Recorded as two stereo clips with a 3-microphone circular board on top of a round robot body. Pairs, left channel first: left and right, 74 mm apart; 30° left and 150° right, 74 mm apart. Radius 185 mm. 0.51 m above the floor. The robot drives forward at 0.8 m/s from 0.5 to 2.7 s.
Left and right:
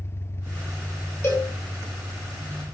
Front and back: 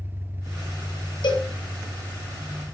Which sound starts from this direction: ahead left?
A cowbell, at 1.2 s.